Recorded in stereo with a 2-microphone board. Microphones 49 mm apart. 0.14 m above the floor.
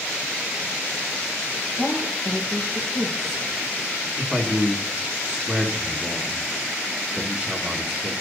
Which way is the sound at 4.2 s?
20° right (ahead or behind).